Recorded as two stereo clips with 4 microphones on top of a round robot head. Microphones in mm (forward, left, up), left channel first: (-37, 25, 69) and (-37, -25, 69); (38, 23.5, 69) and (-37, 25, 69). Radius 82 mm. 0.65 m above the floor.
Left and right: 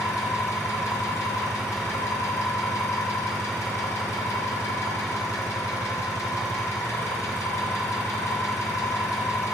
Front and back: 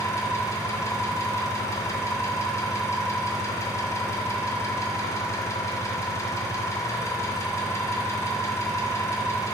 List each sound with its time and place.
0.0 s an engine running: 50° left, 1.2 m